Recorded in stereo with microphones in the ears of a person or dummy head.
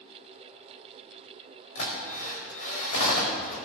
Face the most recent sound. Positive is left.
turn(degrees=70)  # may be behind; listen again after turning